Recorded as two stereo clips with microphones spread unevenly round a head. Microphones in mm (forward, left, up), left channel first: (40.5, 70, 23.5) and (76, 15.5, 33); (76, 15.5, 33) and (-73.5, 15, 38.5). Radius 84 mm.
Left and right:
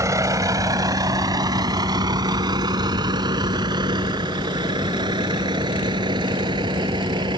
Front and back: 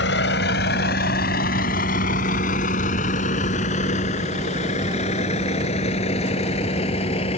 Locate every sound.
0.0 s a vehicle: 20° right; by 7.4 s 55° right